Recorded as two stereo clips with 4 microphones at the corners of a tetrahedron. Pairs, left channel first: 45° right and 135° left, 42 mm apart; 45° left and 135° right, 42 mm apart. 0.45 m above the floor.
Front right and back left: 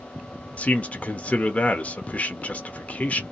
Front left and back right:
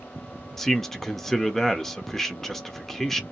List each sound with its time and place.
0.6 s a man speaking: 35° right, 0.8 m